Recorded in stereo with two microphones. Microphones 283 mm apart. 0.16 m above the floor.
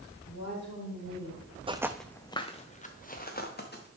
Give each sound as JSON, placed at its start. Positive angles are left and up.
{"t": 0.3, "sound": "a woman speaking", "side_deg": 75, "distance_m": 4.5}
{"t": 1.7, "sound": "footsteps", "side_deg": -20, "distance_m": 0.5}